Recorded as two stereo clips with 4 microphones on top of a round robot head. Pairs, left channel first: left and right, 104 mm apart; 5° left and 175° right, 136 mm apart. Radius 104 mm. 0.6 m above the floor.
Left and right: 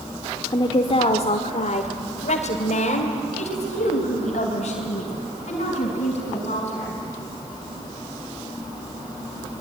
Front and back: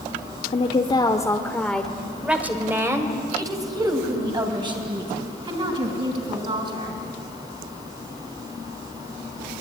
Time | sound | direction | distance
0.5 | a woman speaking | 45° left | 1.5 m